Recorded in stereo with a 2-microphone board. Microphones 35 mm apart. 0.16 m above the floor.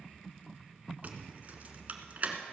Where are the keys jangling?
45° right (ahead or behind), 1.4 m.